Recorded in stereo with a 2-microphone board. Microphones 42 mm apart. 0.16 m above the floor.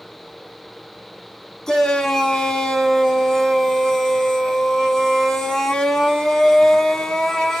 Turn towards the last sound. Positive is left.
turn(degrees=10)  # may be behind; listen again after turning